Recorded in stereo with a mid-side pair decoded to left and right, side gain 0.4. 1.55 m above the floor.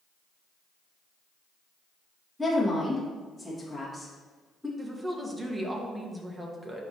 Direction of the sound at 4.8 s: 15° right.